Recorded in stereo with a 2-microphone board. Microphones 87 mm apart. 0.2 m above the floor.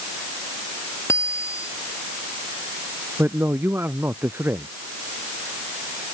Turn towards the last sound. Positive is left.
turn(degrees=-25)  # may be behind; listen again after turning